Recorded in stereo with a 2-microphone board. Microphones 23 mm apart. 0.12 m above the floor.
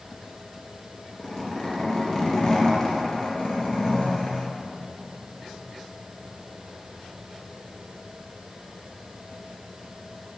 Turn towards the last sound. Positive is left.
turn(degrees=30)  # may be behind; listen again after turning